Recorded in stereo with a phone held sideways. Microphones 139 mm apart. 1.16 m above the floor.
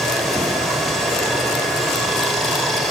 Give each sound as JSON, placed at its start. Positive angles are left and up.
{"t": 0.0, "sound": "running water", "side_deg": 0, "distance_m": 4.5}